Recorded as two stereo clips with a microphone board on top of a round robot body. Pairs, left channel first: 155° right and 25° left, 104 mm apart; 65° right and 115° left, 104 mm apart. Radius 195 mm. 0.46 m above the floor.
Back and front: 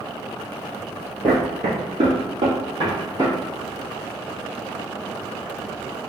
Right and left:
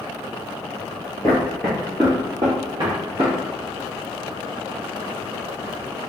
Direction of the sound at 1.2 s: 5° right.